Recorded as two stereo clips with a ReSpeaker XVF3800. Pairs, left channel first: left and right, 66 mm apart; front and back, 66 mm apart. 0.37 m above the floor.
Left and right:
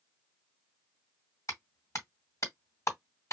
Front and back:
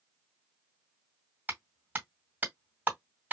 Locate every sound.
1.5 s a clap: 120° left, 2 m